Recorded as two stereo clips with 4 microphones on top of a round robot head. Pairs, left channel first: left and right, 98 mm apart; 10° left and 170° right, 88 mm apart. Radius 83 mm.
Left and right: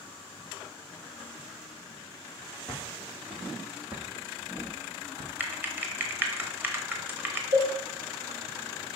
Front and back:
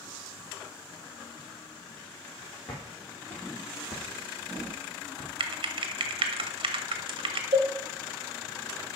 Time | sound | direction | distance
2.7 | footsteps | 10° left | 2 m
5.4 | typing on a keyboard | 160° right | 1.1 m
7.5 | a cowbell | 120° right | 4.5 m